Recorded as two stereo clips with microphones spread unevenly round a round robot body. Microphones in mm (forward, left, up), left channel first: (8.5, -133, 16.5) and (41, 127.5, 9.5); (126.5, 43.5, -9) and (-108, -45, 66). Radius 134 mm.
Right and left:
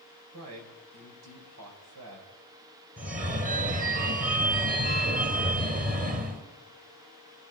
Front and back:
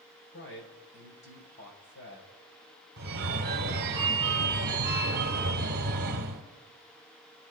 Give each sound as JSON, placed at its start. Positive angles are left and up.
{"t": 0.3, "sound": "a man speaking", "azimuth_deg": 60, "distance_m": 4.5}
{"t": 3.0, "sound": "a phone ringing", "azimuth_deg": 145, "distance_m": 1.3}